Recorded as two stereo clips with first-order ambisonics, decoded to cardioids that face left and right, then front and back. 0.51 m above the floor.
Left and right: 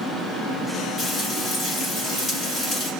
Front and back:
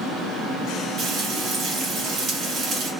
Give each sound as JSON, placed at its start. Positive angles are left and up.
{"t": 1.0, "sound": "frying", "azimuth_deg": 150, "distance_m": 1.3}